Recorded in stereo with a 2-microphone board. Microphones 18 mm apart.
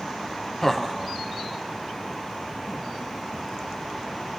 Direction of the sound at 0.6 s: 20° left (ahead or behind).